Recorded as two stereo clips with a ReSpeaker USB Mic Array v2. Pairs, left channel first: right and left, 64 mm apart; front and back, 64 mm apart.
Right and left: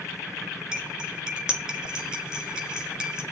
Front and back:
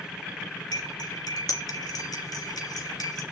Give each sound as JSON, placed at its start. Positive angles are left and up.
{"t": 0.7, "sound": "cutlery clinking", "azimuth_deg": 10, "distance_m": 3.0}